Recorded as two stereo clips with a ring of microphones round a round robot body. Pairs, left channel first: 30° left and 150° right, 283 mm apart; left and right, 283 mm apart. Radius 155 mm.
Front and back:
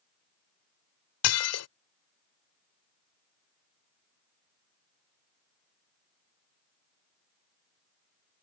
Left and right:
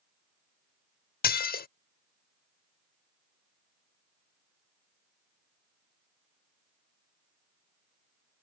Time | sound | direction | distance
1.2 | dishes clattering | 40° left | ?